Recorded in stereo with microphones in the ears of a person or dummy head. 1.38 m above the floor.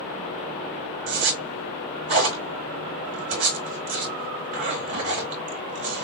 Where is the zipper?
40° right (ahead or behind), 2.5 m.